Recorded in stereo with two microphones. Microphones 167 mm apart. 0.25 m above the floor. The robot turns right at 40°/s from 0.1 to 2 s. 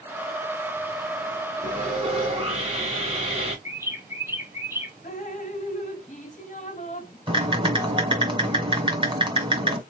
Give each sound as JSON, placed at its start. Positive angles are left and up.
{"t": 1.6, "sound": "sawing", "side_deg": -45, "distance_m": 2.5}
{"t": 3.6, "sound": "a bird", "side_deg": -15, "distance_m": 1.1}
{"t": 5.0, "sound": "dripping", "side_deg": 45, "distance_m": 1.1}
{"t": 7.3, "sound": "typing on a keyboard", "side_deg": -30, "distance_m": 1.8}